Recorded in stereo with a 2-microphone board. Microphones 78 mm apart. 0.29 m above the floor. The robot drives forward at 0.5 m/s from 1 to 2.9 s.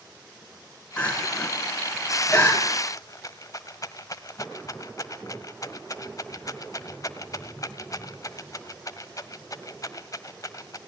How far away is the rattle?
About 1.3 m.